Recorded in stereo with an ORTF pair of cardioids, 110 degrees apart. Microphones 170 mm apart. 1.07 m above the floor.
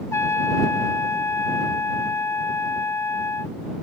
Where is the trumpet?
15° left.